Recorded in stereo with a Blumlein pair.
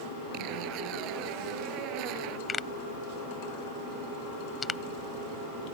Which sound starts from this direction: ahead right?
A zipper, at 0.3 s.